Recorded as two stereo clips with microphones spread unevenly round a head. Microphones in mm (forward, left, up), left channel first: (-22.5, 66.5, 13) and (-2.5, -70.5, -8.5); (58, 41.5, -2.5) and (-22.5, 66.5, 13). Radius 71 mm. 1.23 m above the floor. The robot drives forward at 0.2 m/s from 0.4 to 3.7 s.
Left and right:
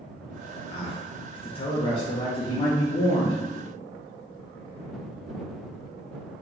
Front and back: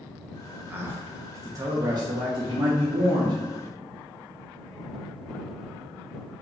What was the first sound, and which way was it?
A man speaking, 105° left.